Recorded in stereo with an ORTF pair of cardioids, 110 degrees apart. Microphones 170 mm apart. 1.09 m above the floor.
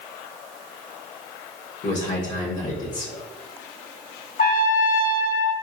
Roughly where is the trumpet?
Ahead left.